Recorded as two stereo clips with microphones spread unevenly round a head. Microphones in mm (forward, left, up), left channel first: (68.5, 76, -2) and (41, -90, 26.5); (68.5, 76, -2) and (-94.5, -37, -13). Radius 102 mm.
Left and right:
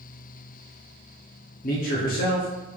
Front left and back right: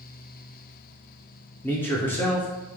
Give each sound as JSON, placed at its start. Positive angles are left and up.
{"t": 1.6, "sound": "a man speaking", "azimuth_deg": 105, "distance_m": 0.6}